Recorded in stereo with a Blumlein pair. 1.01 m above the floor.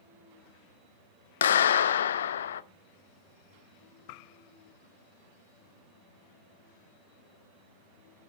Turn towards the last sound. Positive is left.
turn(degrees=65)